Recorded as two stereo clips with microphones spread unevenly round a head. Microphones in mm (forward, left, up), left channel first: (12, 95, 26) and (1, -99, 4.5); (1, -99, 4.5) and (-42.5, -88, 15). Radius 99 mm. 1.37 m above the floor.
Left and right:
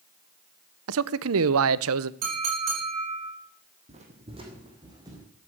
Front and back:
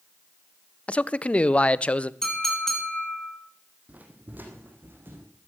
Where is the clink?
95° right, 10 m.